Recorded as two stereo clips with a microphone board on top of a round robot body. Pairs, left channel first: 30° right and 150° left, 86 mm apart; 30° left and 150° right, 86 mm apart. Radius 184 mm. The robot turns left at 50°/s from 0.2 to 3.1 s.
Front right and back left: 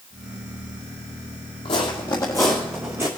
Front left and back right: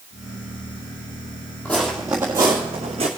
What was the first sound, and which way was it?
Footsteps, 45° right.